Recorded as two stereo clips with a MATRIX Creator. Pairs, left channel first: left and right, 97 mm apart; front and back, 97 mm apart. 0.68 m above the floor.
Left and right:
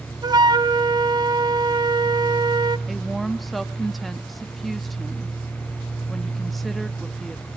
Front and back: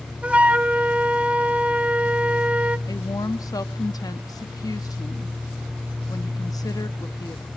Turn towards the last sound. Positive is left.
turn(degrees=0)